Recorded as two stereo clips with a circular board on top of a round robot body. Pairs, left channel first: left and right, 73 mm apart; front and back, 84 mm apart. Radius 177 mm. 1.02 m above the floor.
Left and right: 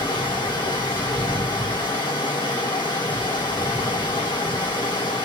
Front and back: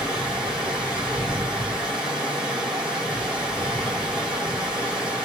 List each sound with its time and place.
0.0 s running water: 95° left, 2.5 m